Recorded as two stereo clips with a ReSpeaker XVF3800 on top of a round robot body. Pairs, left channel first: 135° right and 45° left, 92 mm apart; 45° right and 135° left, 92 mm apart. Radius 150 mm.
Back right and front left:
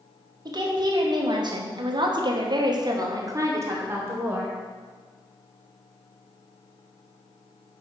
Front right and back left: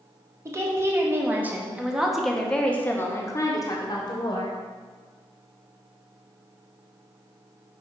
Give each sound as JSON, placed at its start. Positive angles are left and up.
{"t": 0.5, "sound": "a woman speaking", "azimuth_deg": 80, "distance_m": 1.7}